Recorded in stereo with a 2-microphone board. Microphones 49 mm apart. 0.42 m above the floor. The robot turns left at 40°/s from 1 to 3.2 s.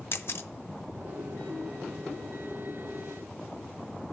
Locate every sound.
0.1 s a camera shutter: 55° left (ahead or behind), 0.7 m